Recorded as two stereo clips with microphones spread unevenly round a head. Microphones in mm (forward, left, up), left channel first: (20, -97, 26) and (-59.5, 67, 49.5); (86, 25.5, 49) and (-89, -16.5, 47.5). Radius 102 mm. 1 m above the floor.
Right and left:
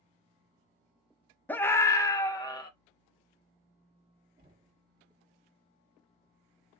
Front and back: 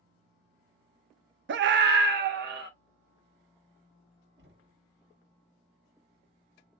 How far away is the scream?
About 0.5 m.